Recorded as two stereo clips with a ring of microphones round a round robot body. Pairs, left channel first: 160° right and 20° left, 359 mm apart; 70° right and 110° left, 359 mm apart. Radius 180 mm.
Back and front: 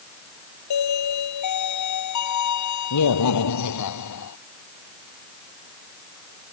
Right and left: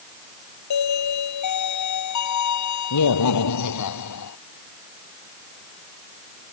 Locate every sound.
0.7 s a doorbell: 115° right